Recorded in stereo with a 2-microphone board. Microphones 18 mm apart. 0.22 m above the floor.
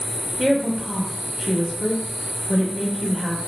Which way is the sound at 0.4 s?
10° right (ahead or behind).